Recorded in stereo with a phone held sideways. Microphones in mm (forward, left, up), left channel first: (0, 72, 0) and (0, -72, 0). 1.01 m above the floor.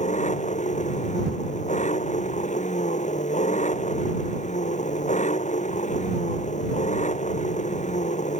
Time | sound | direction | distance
0.0 | an engine running | 55° left (ahead or behind) | ?